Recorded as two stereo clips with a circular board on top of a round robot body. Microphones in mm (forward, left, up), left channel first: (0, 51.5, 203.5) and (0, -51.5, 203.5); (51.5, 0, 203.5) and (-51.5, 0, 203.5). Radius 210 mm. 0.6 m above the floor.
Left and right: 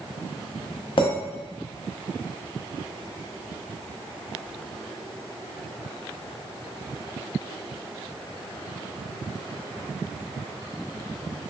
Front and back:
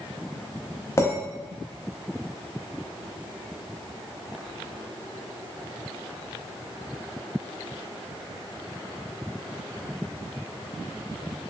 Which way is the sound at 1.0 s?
60° left.